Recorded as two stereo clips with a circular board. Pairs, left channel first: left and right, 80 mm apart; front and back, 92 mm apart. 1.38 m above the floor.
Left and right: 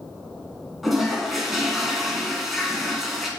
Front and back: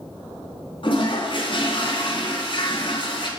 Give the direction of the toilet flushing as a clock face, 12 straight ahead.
12 o'clock.